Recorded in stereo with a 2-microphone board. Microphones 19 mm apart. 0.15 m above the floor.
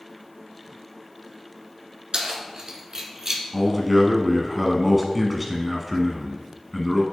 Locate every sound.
2.1 s keys jangling: 50° right (ahead or behind), 1.5 m; by 3.4 s 20° right (ahead or behind), 1.1 m
3.5 s a man speaking: 5° right (ahead or behind), 1.1 m